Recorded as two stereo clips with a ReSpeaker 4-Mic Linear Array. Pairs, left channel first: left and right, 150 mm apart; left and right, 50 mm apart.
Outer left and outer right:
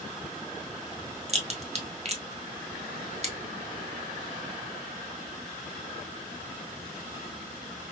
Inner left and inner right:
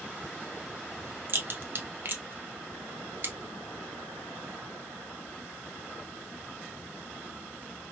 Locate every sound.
1.3 s a crack: 45° right (ahead or behind), 0.8 m